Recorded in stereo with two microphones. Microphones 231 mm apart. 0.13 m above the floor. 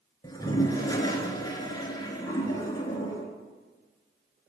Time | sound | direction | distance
0.2 | a toilet flushing | 15° left (ahead or behind) | 0.8 m